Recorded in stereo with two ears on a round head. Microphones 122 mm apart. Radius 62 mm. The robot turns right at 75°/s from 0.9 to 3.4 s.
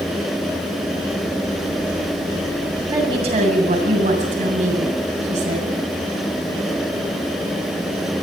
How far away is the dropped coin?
I don't hear a dropped coin.